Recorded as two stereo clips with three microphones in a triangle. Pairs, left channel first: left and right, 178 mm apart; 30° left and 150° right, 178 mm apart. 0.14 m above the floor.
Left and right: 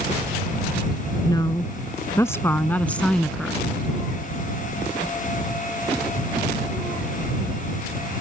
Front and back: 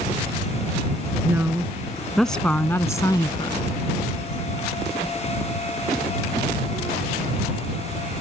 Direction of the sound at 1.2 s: 145° left.